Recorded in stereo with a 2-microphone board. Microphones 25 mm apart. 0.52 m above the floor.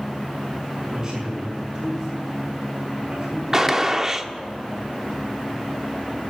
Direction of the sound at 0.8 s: 40° right (ahead or behind).